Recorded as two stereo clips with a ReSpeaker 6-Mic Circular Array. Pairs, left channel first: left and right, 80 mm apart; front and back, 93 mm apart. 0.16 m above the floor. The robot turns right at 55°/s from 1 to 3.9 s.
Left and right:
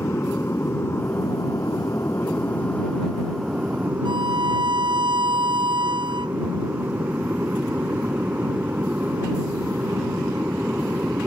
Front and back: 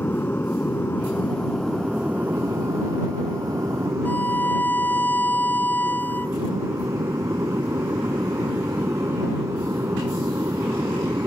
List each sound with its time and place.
0.0 s an aircraft: 55° left; by 11.3 s 145° right
4.0 s a violin: 70° right